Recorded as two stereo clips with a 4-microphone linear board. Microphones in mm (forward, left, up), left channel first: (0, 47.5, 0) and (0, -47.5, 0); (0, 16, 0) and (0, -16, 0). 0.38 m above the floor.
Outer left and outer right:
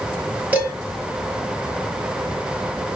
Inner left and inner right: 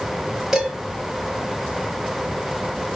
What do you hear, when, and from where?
0.5 s dishes clattering: 15° right (ahead or behind), 4.5 m